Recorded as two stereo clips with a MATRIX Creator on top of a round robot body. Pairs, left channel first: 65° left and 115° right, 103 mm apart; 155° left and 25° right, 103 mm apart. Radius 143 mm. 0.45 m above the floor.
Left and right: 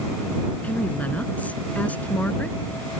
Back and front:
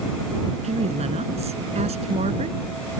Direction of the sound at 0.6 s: 10° right.